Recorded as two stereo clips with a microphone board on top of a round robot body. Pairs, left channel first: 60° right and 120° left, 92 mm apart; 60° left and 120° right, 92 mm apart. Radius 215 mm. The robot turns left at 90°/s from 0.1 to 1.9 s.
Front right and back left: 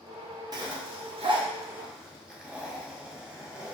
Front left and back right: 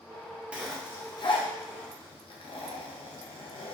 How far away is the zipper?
About 0.9 m.